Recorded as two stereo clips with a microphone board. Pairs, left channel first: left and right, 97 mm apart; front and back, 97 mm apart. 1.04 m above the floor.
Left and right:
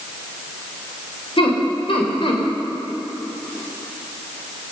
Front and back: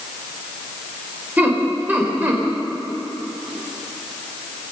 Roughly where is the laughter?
Left.